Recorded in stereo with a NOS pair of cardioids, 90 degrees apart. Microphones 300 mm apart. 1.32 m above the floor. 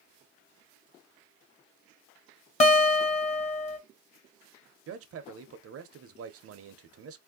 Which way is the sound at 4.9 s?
50° right.